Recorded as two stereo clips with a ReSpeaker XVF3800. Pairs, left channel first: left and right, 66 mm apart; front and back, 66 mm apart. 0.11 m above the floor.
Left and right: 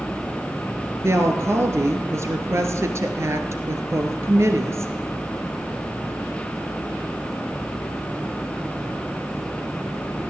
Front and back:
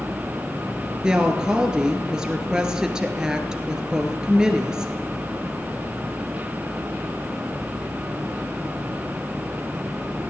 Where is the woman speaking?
105° right, 1.6 m.